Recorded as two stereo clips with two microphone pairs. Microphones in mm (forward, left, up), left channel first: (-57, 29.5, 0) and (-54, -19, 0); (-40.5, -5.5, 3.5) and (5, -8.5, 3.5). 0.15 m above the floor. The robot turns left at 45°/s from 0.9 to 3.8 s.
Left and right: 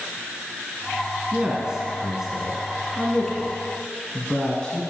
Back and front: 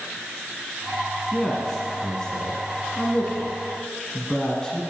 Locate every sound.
1.3 s a man speaking: 115° right, 1.5 m; by 4.8 s 135° left, 1.5 m